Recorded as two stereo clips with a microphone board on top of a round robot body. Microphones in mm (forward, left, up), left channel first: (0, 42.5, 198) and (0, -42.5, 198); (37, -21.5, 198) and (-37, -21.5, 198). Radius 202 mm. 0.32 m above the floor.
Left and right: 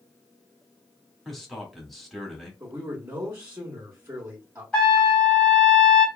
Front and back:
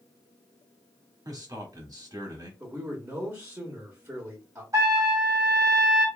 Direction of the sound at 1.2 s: Straight behind.